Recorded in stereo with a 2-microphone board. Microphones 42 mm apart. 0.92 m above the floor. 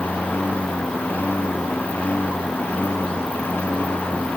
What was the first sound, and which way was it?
A lawn mower, 50° left (ahead or behind).